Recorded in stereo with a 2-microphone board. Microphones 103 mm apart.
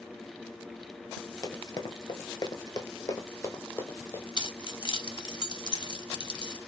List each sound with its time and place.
1.4 s running footsteps: 40° left (ahead or behind), 0.9 m; by 4.2 s 25° left (ahead or behind), 1.4 m
4.4 s keys jangling: 45° left (ahead or behind), 0.8 m